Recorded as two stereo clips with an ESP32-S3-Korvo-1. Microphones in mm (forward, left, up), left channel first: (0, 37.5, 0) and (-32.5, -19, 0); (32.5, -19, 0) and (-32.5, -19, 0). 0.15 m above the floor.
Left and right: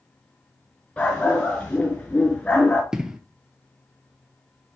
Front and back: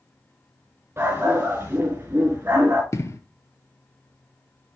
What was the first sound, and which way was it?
A dog barking, 130° left.